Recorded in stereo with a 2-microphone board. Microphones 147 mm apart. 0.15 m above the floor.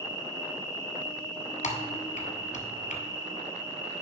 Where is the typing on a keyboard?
60° left (ahead or behind), 1.2 m.